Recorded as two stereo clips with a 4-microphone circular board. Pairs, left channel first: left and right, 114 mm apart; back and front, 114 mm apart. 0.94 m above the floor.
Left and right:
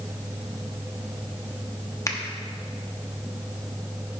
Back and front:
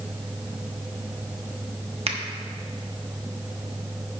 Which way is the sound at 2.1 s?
30° left.